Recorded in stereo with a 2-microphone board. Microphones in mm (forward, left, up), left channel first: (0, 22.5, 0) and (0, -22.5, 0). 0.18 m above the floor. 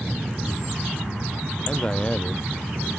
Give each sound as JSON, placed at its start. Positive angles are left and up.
{"t": 1.7, "sound": "a man speaking", "side_deg": 20}